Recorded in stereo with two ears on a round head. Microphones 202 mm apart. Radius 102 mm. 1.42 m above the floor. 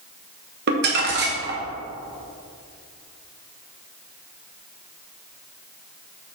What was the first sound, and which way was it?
Crumpling, 45° right (ahead or behind).